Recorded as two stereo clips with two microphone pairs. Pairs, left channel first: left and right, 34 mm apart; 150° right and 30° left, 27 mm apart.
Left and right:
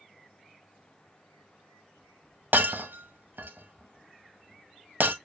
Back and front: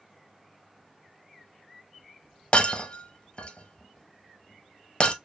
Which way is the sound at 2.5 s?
100° right.